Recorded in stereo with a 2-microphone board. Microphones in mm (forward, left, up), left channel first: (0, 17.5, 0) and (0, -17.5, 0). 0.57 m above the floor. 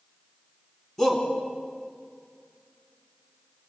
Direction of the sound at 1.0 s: 5° left (ahead or behind).